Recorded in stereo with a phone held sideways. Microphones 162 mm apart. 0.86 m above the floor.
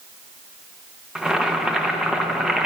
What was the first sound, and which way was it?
Boiling, 5° right (ahead or behind).